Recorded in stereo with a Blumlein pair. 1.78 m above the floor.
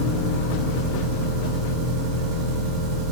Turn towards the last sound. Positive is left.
turn(degrees=-45)